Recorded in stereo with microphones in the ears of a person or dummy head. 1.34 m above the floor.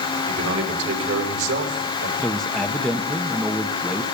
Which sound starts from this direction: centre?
A man speaking, at 2.2 s.